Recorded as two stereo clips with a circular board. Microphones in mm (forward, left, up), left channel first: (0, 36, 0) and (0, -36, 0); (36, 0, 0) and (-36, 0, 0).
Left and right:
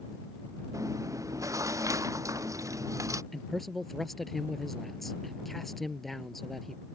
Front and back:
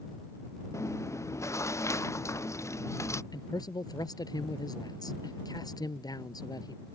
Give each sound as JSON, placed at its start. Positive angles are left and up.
{"t": 0.7, "sound": "chewing", "azimuth_deg": -50}
{"t": 3.3, "sound": "a man speaking", "azimuth_deg": 0}